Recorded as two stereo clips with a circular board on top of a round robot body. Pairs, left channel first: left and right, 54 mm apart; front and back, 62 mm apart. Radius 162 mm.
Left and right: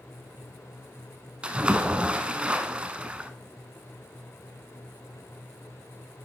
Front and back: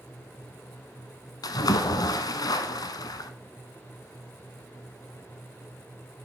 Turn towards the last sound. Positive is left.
turn(degrees=-20)